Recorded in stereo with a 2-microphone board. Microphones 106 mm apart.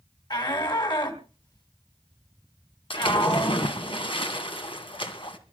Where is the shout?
50° left (ahead or behind), 2.5 m.